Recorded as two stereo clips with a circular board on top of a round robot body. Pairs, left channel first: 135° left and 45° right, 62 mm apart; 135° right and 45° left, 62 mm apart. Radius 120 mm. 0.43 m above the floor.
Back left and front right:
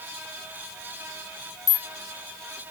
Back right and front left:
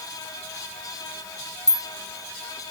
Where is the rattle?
145° left, 1.7 m.